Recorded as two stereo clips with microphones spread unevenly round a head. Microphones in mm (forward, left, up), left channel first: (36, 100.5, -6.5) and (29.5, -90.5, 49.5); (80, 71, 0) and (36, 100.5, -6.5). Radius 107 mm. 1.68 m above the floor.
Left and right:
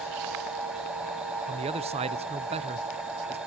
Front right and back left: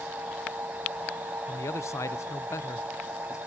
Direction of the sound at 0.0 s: 155° right.